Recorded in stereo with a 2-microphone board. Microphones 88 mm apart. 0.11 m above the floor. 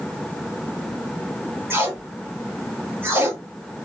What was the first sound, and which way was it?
Tape being pulled, 25° right (ahead or behind).